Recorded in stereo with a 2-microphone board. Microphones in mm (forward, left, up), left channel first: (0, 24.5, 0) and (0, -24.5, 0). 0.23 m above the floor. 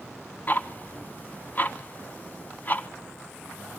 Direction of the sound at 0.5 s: 35° left (ahead or behind).